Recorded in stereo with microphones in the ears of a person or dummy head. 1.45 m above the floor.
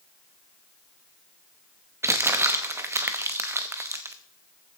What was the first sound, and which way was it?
Crumpling, 15° right (ahead or behind).